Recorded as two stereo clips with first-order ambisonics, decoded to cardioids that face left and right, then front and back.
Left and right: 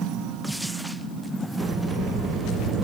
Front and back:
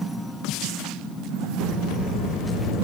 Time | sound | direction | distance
1.6 | a sliding door | 55° right | 2 m